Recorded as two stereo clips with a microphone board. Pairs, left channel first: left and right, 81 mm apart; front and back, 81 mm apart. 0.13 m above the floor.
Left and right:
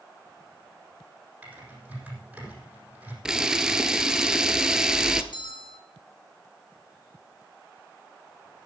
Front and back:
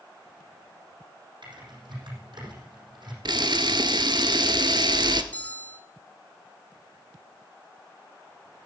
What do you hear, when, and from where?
1.4 s typing on a keyboard: 165° right, 6.5 m
3.2 s a camera shutter: 170° right, 0.9 m
5.3 s a bell: 70° left, 1.4 m